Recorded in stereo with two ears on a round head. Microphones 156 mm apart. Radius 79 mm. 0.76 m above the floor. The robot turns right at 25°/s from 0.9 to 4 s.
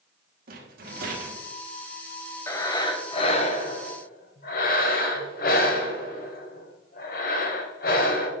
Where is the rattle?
55° right (ahead or behind), 1.7 m; by 1.4 s 45° right (ahead or behind), 1.7 m.